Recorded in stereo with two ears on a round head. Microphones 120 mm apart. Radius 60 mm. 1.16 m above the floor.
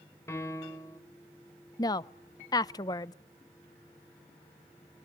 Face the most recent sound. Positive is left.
turn(degrees=30)  # may be behind; listen again after turning